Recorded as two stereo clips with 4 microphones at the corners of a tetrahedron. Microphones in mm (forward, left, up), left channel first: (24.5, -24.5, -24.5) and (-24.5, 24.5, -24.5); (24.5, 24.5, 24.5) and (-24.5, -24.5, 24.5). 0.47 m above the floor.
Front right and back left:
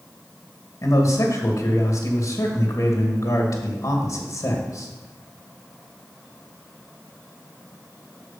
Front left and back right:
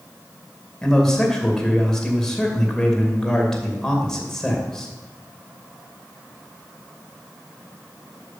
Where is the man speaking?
35° right, 2.5 m.